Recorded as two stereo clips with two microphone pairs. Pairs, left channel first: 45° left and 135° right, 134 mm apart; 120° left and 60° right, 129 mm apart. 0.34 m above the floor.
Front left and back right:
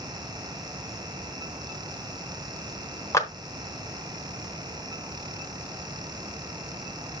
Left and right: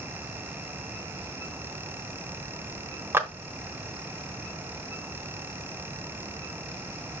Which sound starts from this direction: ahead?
A clap, at 3.1 s.